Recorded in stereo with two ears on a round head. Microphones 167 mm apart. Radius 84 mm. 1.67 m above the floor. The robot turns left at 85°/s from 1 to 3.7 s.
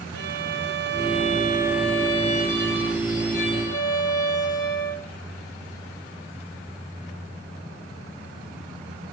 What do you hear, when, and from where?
0.1 s a violin: 110° right, 4 m; by 5.1 s 20° left, 4 m